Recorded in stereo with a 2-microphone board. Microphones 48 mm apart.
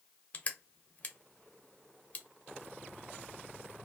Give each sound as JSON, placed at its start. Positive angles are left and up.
{"t": 0.3, "sound": "crushing", "side_deg": 30, "distance_m": 0.5}